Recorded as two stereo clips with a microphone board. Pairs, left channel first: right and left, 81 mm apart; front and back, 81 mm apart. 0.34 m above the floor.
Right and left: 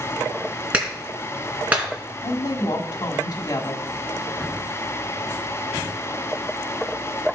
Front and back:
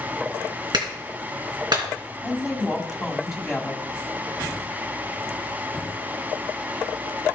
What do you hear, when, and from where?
0.7 s a clap: 165° left, 3 m
2.2 s a woman speaking: 95° right, 1.8 m